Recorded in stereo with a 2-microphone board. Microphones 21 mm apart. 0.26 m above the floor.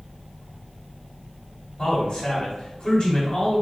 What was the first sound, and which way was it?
A man speaking, 40° left (ahead or behind).